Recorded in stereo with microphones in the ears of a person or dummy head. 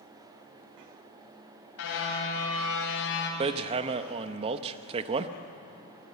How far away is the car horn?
About 4 m.